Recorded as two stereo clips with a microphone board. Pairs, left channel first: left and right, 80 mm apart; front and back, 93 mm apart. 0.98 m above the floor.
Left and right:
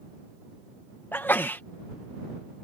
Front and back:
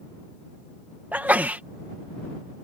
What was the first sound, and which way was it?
A sneeze, 125° left.